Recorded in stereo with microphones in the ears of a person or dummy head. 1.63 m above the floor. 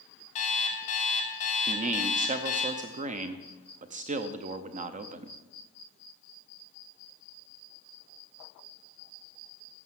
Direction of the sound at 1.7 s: 35° right (ahead or behind).